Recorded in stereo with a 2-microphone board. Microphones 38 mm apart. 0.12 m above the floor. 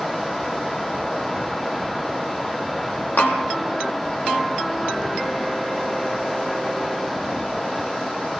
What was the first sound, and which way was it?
Tapping, 70° left (ahead or behind).